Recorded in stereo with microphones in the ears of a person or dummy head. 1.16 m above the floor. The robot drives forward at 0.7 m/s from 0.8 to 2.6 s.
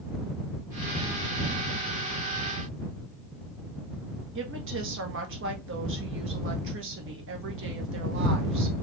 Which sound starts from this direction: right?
A woman speaking, at 4.3 s.